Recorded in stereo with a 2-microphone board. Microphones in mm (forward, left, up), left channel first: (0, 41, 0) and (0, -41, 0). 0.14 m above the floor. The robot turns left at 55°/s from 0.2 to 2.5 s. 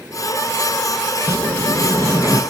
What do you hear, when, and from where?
1.3 s a sliding door: 95° right, 0.6 m; by 2.4 s 160° right, 0.6 m